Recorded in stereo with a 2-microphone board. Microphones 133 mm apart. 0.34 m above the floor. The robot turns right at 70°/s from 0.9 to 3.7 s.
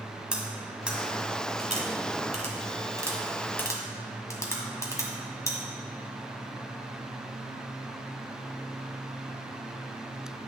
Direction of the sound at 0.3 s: 5° right (ahead or behind).